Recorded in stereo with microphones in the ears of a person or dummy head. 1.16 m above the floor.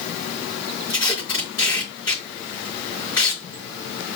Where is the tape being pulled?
15° left (ahead or behind), 3.5 m.